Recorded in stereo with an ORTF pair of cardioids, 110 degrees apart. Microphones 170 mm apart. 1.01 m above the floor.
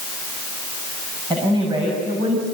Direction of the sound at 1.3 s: 25° right.